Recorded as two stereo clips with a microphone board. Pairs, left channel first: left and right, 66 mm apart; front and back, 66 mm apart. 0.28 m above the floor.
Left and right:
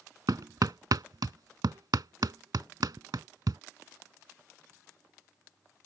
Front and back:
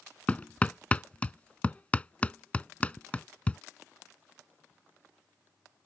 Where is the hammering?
70° right.